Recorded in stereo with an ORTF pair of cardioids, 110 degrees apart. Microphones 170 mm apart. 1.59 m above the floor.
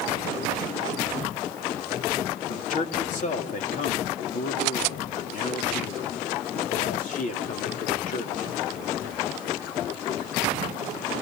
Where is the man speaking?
50° left, 3.5 m.